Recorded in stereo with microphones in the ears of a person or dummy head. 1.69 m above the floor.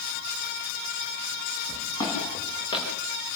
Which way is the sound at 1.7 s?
20° left (ahead or behind).